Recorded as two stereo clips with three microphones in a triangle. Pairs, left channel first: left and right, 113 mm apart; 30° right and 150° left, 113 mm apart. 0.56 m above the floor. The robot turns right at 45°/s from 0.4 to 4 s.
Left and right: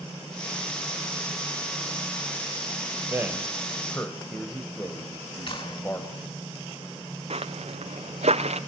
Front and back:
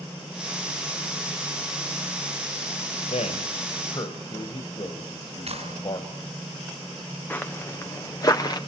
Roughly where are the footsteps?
Right.